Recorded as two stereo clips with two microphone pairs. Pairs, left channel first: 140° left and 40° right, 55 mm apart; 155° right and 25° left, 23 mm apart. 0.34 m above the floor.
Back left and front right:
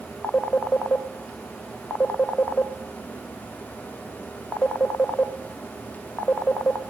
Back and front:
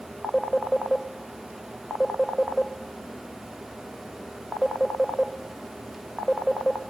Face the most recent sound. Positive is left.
turn(degrees=150)